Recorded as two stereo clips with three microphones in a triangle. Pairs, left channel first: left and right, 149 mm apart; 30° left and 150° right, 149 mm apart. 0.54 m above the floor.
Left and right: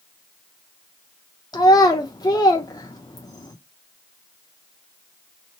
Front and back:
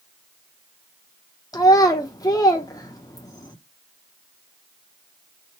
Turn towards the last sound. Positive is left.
turn(degrees=60)